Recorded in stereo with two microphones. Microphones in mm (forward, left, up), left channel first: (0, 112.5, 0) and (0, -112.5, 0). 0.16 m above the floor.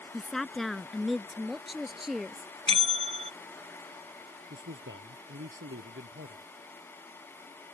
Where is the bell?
30° right (ahead or behind).